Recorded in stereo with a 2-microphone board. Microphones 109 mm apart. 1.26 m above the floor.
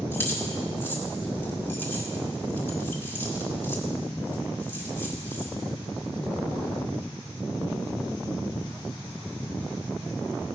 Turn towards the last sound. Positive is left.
turn(degrees=20)  # may be behind; listen again after turning